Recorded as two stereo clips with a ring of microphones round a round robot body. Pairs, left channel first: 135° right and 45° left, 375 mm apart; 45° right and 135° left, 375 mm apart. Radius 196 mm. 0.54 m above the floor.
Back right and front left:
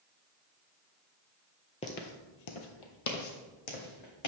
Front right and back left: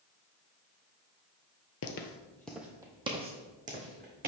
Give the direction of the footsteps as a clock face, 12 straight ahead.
2 o'clock.